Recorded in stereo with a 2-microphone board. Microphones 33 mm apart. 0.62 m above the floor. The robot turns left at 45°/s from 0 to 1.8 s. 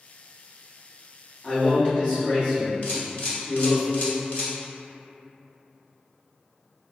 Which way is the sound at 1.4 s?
45° left (ahead or behind).